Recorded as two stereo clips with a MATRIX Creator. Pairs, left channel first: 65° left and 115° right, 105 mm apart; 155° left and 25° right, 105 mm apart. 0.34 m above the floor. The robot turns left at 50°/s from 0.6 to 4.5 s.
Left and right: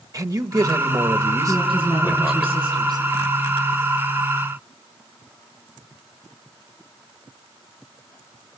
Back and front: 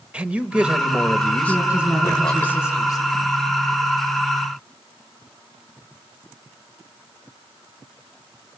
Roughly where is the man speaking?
Right.